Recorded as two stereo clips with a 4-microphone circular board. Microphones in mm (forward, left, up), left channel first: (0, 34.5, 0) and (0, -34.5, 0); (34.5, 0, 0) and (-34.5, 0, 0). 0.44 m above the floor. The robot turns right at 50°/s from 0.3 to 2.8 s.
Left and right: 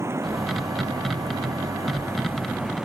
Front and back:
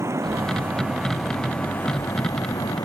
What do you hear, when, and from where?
0.0 s running water: 135° right; by 2.9 s 10° right